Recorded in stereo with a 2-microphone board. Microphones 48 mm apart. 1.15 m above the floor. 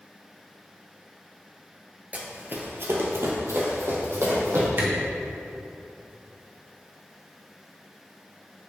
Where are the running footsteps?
30° right (ahead or behind), 1.4 m; by 4.7 s 75° right (ahead or behind), 3.5 m.